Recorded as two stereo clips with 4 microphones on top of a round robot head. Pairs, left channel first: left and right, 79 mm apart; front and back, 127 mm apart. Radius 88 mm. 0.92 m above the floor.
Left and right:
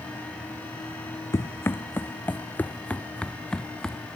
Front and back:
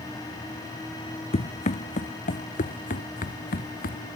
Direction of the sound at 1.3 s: 35° left.